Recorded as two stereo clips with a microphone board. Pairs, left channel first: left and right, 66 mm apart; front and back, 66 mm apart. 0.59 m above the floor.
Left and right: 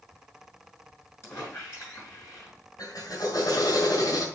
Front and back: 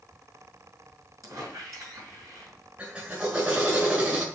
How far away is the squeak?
About 4.5 m.